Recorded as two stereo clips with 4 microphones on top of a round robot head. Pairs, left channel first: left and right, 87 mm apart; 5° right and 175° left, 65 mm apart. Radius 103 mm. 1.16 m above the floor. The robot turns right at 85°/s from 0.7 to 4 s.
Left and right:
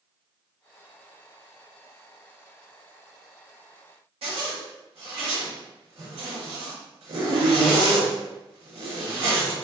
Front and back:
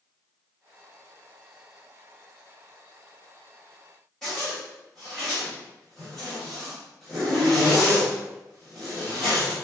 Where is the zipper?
90° right, 1.1 m.